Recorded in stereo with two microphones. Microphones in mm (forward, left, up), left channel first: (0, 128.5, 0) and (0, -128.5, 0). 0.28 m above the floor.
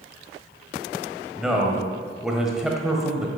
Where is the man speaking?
Centre (ahead or behind), 1.5 m.